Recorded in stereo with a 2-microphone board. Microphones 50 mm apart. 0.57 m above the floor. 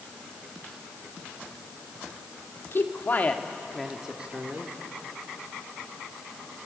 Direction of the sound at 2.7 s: 55° left (ahead or behind).